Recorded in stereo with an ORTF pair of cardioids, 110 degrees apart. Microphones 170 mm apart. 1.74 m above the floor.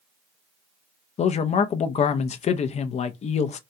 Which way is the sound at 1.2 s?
40° left.